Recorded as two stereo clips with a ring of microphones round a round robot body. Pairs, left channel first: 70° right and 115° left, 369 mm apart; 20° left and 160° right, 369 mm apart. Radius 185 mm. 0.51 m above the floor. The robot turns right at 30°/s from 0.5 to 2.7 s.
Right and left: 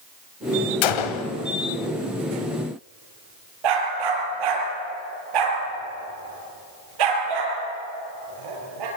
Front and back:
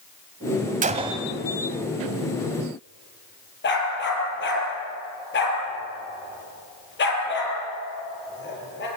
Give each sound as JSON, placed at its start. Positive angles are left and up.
{"t": 0.8, "sound": "a gunshot", "azimuth_deg": -85, "distance_m": 1.4}
{"t": 3.6, "sound": "a dog barking", "azimuth_deg": 85, "distance_m": 5.5}